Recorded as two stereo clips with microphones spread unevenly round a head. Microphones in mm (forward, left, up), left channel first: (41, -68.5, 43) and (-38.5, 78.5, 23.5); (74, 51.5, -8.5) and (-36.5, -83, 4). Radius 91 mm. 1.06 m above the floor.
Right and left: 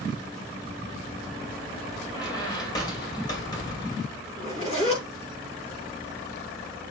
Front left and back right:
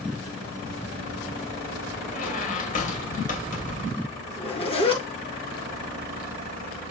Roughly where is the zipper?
Ahead.